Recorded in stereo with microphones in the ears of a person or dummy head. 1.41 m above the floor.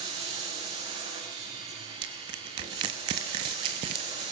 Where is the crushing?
30° right (ahead or behind), 1.0 m.